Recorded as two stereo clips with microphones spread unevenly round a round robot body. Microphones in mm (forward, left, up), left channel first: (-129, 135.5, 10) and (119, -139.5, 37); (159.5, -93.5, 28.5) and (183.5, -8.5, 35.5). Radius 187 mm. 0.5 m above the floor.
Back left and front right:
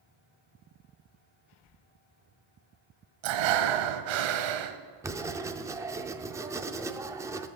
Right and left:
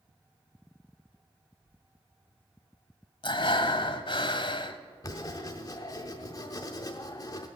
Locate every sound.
3.2 s breathing: 70° right, 1.0 m
5.0 s writing: 135° right, 0.6 m